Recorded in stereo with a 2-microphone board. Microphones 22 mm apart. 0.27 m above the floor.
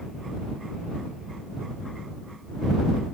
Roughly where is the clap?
I don't hear a clap.